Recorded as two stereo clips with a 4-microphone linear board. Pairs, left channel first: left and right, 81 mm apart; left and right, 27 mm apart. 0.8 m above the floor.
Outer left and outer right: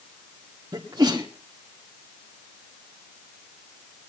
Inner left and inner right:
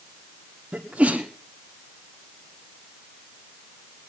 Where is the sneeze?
50° right (ahead or behind), 1.9 m.